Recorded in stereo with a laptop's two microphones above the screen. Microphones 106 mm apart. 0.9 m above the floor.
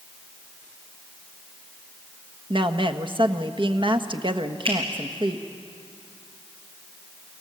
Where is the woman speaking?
50° right (ahead or behind), 1.3 m.